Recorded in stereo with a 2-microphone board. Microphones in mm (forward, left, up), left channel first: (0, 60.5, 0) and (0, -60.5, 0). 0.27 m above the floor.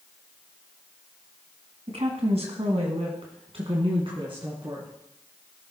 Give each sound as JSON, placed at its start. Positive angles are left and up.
{"t": 1.9, "sound": "a woman speaking", "side_deg": -60, "distance_m": 2.0}